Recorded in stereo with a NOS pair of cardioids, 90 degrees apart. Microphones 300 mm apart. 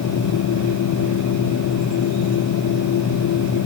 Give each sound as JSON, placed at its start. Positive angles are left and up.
{"t": 0.0, "sound": "a machine running", "azimuth_deg": 70}